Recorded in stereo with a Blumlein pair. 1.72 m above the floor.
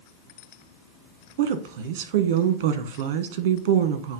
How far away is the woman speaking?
About 1.3 m.